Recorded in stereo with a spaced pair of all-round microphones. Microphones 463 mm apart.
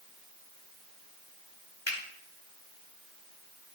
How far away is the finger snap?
About 2.5 m.